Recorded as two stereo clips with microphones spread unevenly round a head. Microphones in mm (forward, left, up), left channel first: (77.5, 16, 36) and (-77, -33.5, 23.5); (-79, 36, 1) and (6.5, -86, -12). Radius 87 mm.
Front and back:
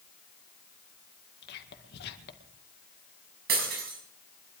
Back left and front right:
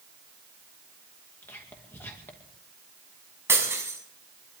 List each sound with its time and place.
1.4 s whispering: 45° left, 2 m
3.5 s breaking glass: 130° right, 6 m